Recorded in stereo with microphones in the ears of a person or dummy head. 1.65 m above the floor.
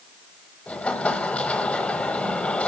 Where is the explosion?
10° left (ahead or behind), 1.1 m.